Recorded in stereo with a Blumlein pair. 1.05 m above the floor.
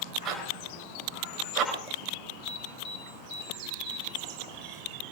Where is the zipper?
35° right, 4.5 m.